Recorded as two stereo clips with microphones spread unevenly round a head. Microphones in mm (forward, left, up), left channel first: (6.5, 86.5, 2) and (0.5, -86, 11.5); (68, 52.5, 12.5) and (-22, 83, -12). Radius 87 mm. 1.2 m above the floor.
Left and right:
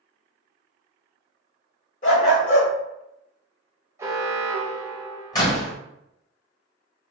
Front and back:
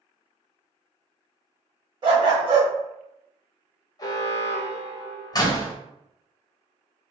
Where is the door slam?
20° left, 0.8 m.